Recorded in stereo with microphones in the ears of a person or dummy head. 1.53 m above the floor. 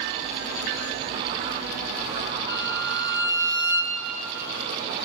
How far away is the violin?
About 5 m.